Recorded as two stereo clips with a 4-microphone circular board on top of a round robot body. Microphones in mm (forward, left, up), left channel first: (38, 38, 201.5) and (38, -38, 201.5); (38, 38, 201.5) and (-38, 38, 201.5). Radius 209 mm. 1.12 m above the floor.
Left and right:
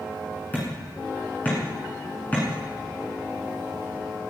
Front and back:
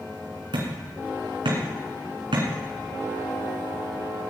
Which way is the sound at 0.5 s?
160° left.